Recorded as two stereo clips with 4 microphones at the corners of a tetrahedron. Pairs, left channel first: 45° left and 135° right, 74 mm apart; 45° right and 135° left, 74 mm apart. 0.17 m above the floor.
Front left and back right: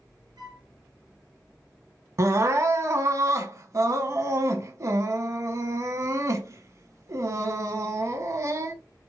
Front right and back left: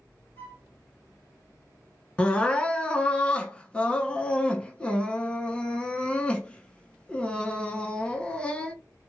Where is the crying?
110° right, 0.6 m.